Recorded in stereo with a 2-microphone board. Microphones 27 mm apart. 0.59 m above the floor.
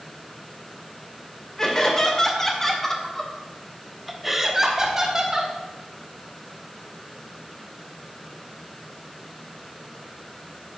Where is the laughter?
20° left (ahead or behind), 2.5 m; by 5.5 s 25° right (ahead or behind), 1.5 m.